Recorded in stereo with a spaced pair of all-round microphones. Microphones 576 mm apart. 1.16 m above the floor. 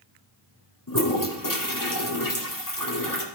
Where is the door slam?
No door slam in this recording.